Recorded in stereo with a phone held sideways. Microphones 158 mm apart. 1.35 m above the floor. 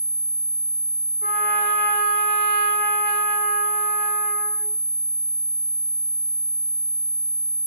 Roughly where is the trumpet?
Left.